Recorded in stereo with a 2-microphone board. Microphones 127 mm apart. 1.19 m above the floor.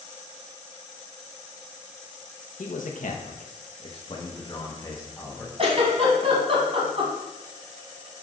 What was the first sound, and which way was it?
A man speaking, 75° left (ahead or behind).